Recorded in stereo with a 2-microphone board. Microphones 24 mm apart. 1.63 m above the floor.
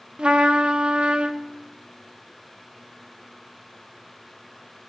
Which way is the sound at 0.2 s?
50° right (ahead or behind).